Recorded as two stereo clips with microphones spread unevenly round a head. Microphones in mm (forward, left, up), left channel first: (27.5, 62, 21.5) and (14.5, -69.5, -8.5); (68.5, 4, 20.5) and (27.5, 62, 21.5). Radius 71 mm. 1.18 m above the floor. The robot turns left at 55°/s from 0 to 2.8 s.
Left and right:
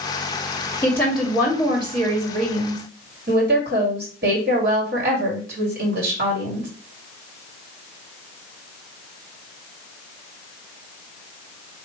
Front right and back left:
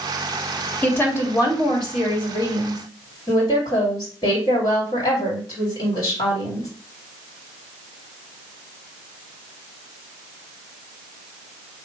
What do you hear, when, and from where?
0.8 s a woman speaking: 10° left, 2.5 m; by 6.7 s 95° right, 2.5 m